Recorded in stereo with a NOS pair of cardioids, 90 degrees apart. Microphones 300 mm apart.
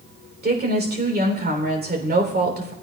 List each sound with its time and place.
0.4 s a woman speaking: 30° right, 3 m